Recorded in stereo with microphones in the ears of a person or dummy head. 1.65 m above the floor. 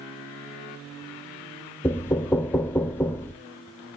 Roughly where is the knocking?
Centre.